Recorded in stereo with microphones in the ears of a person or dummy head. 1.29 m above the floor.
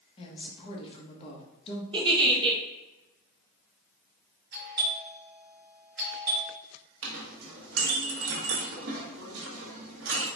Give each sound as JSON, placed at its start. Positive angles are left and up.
{"t": 0.2, "sound": "a woman speaking", "side_deg": 30, "distance_m": 1.1}
{"t": 1.9, "sound": "a giggle", "side_deg": -25, "distance_m": 0.7}
{"t": 4.5, "sound": "a doorbell", "side_deg": -50, "distance_m": 1.3}
{"t": 7.0, "sound": "a clink", "side_deg": -70, "distance_m": 1.0}